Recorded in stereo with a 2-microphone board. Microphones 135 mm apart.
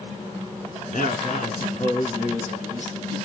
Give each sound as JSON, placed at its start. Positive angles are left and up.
{"t": 0.9, "sound": "a man speaking", "side_deg": 75, "distance_m": 4.0}